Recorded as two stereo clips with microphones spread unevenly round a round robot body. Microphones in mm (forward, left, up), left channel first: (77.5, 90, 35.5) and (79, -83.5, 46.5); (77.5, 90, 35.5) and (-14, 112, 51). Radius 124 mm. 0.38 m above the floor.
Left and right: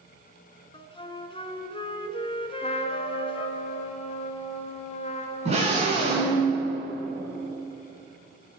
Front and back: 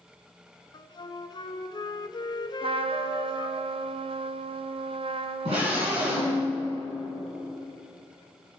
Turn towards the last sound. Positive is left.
turn(degrees=-150)